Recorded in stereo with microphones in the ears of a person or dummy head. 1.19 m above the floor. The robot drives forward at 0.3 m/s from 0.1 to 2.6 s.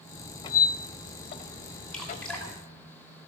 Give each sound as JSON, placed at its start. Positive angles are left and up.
{"t": 0.4, "sound": "a squeak", "side_deg": 25, "distance_m": 0.8}
{"t": 1.9, "sound": "dripping", "side_deg": 5, "distance_m": 2.5}